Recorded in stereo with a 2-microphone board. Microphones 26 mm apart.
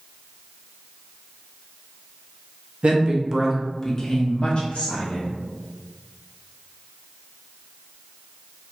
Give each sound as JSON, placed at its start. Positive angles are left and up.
{"t": 2.8, "sound": "a woman speaking", "side_deg": -50, "distance_m": 0.7}